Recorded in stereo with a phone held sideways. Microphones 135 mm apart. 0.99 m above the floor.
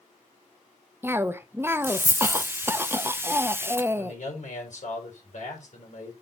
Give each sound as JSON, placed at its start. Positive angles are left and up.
{"t": 1.0, "sound": "a cough", "side_deg": -15, "distance_m": 0.7}
{"t": 4.0, "sound": "a man speaking", "side_deg": 65, "distance_m": 4.0}